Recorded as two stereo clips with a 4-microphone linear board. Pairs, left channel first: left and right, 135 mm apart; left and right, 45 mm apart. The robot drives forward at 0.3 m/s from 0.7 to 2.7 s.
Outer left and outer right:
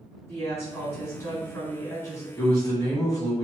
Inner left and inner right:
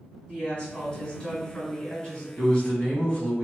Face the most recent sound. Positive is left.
turn(degrees=30)  # may be behind; listen again after turning